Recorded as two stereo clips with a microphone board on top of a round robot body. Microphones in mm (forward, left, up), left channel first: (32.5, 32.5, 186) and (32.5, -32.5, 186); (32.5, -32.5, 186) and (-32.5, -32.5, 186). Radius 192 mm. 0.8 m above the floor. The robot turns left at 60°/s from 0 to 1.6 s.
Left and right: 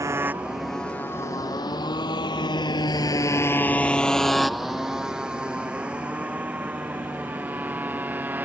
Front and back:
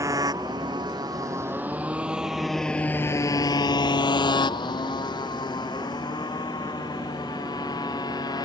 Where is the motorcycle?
135° right; by 8.4 s 25° right.